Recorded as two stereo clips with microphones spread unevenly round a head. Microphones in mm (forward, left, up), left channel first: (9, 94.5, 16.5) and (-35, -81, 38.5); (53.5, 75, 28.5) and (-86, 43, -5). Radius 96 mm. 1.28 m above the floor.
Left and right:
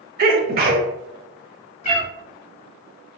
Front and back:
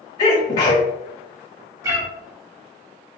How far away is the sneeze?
About 0.8 m.